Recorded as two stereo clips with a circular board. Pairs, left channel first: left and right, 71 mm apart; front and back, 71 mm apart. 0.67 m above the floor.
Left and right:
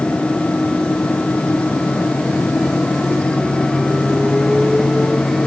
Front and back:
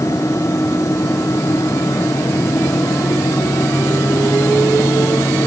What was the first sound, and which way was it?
Only background noise.